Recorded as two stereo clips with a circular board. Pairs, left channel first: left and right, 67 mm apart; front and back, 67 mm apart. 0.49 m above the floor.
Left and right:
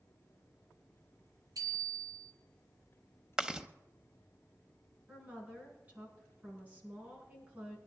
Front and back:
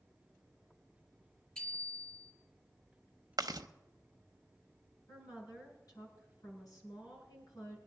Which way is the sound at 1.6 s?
75° right.